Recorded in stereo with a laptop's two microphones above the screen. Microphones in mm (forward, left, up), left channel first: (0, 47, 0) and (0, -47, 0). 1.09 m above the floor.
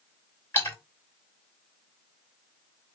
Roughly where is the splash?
Left.